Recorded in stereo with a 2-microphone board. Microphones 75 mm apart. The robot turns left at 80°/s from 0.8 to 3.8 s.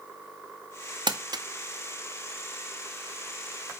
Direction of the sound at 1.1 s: 85° right.